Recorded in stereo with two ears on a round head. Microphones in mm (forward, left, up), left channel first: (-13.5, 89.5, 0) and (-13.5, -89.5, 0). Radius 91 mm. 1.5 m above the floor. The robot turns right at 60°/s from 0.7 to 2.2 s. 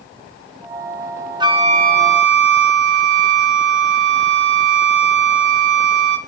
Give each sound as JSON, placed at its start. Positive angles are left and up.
{"t": 1.4, "sound": "a flute", "azimuth_deg": -155, "distance_m": 1.8}